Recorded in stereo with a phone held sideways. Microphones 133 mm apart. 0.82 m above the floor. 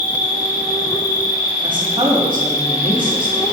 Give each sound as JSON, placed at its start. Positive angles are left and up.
{"t": 0.0, "sound": "an insect", "side_deg": 25, "distance_m": 0.9}
{"t": 1.6, "sound": "a woman speaking", "side_deg": -35, "distance_m": 4.0}